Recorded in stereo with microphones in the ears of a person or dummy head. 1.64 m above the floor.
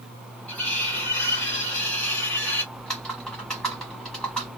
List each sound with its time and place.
0.5 s cutlery clinking: 10° left (ahead or behind), 1.3 m
2.7 s typing on a keyboard: 5° left (ahead or behind), 1.3 m